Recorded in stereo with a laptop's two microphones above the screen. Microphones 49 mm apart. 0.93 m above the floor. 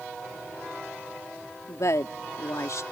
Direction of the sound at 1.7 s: 75° left (ahead or behind).